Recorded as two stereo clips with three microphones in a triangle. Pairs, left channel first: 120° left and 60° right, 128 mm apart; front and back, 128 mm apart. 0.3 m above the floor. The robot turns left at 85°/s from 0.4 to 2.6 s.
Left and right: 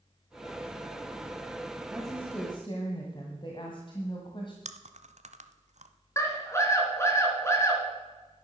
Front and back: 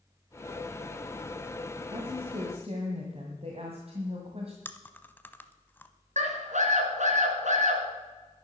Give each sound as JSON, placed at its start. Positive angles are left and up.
{"t": 1.9, "sound": "a woman speaking", "azimuth_deg": -140, "distance_m": 1.8}
{"t": 4.7, "sound": "chewing", "azimuth_deg": -75, "distance_m": 0.8}
{"t": 6.2, "sound": "a scream", "azimuth_deg": -175, "distance_m": 3.5}